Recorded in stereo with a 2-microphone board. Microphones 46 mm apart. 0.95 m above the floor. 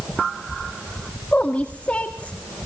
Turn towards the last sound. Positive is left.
turn(degrees=30)  # may be behind; listen again after turning